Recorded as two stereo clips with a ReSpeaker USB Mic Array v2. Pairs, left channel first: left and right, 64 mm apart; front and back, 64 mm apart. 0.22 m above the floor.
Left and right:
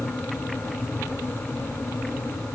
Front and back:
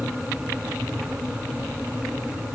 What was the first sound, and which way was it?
Only background noise.